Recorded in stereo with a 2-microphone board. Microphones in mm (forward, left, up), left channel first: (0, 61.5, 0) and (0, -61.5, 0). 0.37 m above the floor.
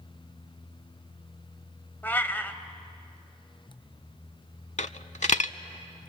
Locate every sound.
2.0 s a cat meowing: 15° left (ahead or behind), 0.8 m
4.8 s a dropped coin: 70° left (ahead or behind), 0.5 m